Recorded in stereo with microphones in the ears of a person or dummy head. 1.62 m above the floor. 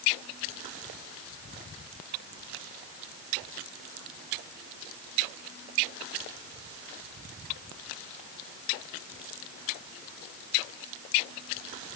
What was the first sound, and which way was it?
Only background noise.